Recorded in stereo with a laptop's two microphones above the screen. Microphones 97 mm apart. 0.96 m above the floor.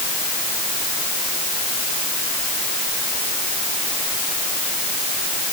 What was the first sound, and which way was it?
Only background noise.